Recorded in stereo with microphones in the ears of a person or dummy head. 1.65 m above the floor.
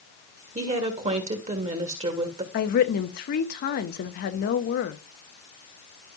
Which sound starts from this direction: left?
A woman speaking, at 2.5 s.